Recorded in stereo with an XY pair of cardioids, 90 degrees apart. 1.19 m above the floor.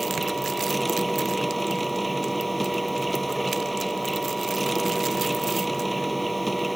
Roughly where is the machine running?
Ahead.